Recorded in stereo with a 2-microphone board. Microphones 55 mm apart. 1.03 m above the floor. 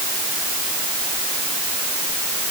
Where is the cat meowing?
No cat meowing in this recording.